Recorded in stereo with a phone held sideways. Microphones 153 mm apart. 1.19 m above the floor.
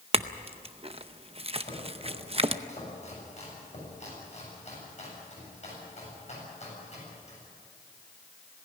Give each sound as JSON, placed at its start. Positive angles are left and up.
{"t": 0.1, "sound": "a clink", "side_deg": -40, "distance_m": 0.7}
{"t": 1.6, "sound": "chopping", "side_deg": 45, "distance_m": 8.0}